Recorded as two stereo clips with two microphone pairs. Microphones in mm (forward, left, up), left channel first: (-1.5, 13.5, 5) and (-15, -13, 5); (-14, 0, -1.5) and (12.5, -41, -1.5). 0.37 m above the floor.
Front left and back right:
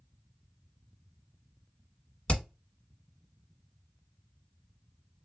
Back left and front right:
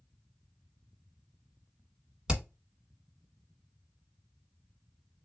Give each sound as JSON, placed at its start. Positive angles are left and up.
{"t": 2.3, "sound": "hammering", "azimuth_deg": 15, "distance_m": 1.2}